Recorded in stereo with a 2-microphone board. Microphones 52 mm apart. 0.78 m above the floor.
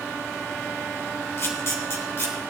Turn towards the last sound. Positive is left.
turn(degrees=50)  # may be behind; listen again after turning